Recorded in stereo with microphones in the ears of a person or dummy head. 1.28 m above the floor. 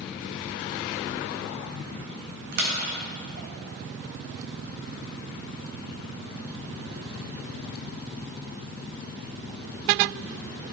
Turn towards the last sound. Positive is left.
turn(degrees=-50)  # may be behind; listen again after turning